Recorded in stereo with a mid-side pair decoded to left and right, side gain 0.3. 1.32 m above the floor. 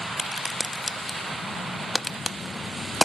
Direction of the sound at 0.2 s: 20° left.